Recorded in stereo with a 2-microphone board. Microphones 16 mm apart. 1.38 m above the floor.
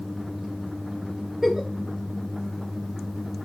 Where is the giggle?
25° right (ahead or behind), 2.5 m.